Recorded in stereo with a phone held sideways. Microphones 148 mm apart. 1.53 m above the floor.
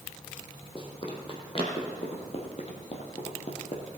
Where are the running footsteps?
35° left (ahead or behind), 2.5 m; by 3.8 s 50° left (ahead or behind), 2.5 m.